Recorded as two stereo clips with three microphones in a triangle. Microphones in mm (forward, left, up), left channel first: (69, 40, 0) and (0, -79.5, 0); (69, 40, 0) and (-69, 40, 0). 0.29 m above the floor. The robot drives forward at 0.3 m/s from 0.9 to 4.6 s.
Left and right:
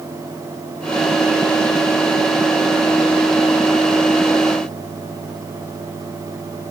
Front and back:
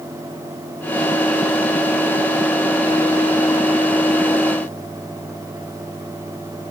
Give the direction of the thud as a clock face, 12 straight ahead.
I don't hear a thud.